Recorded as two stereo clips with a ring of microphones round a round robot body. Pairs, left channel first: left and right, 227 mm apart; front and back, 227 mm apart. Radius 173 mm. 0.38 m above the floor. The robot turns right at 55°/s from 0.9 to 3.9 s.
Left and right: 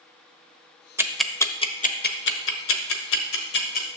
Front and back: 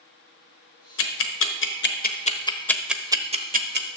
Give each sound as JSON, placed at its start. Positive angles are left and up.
{"t": 1.0, "sound": "ticking", "azimuth_deg": -10, "distance_m": 1.1}